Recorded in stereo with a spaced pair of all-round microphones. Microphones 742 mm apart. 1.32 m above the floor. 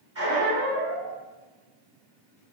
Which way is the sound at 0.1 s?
20° right (ahead or behind).